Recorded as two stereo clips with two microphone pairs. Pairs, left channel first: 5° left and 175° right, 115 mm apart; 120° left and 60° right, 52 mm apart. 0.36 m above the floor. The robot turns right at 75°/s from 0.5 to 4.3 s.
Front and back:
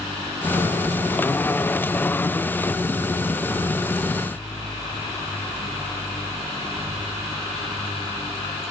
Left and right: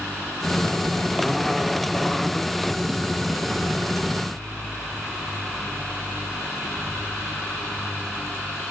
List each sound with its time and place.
Only background noise.